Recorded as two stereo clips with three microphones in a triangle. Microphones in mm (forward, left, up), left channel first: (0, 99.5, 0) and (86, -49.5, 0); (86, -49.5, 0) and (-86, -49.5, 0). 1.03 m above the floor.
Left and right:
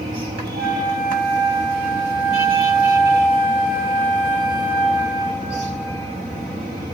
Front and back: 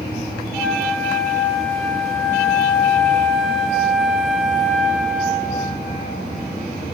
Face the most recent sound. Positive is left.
turn(degrees=-85)